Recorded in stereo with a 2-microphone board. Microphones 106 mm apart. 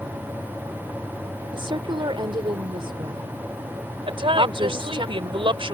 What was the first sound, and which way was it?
A woman speaking, 55° right (ahead or behind).